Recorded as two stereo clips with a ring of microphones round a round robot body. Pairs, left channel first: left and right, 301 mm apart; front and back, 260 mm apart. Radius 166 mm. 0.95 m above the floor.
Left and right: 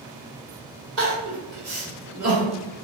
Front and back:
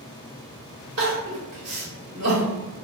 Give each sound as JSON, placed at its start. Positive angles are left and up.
{"t": 1.0, "sound": "crying", "azimuth_deg": -135, "distance_m": 1.3}